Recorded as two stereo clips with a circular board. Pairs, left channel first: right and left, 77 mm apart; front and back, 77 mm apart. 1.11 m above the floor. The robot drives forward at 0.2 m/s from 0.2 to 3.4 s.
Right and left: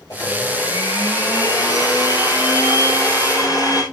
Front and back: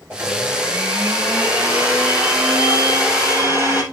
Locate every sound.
0.1 s a blender: 120° right, 6.5 m; by 3.8 s 125° right, 6.5 m